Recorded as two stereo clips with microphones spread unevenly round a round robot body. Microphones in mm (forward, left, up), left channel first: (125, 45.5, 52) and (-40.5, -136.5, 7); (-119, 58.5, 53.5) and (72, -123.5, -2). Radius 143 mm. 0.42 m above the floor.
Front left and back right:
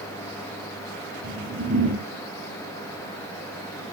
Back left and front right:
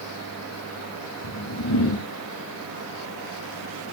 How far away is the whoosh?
About 1.1 m.